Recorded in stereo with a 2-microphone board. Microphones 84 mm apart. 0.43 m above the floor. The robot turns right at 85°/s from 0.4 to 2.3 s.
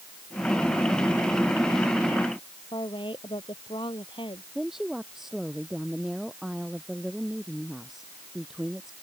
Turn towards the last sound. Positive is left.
turn(degrees=-5)  # may be behind; listen again after turning